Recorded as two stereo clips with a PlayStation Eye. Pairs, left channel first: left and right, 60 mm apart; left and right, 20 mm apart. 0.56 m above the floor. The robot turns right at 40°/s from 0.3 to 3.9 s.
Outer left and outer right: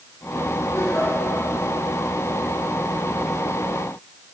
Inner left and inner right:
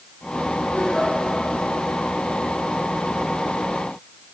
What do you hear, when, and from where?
0.7 s a giggle: 65° left (ahead or behind), 5.5 m; by 1.1 s 50° left (ahead or behind), 5.5 m